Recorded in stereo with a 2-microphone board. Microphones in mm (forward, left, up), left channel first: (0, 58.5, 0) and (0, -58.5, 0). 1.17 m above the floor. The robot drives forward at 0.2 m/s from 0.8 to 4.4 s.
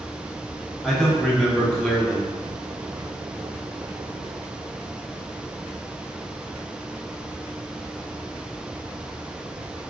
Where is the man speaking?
5° left (ahead or behind), 0.8 m.